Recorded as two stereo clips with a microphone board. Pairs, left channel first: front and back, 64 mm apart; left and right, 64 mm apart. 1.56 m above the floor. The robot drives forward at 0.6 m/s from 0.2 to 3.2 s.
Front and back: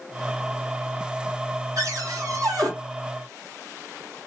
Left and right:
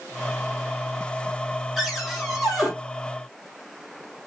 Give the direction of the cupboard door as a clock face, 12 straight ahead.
6 o'clock.